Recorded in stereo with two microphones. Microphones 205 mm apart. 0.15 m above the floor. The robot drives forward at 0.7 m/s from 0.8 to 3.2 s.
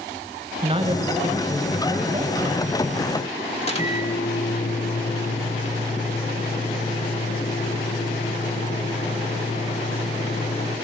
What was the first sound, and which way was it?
A man speaking, 25° right (ahead or behind).